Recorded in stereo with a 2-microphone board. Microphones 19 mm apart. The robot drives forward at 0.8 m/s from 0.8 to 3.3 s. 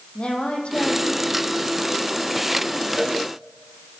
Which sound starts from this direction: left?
A woman speaking, at 0.1 s.